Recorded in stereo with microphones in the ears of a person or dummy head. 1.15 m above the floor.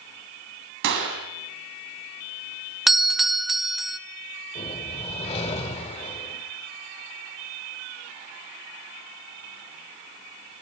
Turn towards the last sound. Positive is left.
turn(degrees=30)  # may be behind; listen again after turning